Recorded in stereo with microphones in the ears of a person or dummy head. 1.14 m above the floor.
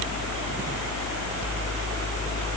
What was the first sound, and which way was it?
Only background noise.